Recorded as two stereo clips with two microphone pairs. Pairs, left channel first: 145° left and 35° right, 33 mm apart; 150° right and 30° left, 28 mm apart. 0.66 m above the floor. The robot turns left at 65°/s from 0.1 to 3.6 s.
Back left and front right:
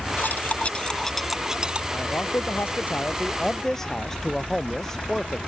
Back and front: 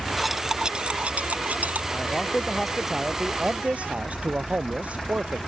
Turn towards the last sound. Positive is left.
turn(degrees=65)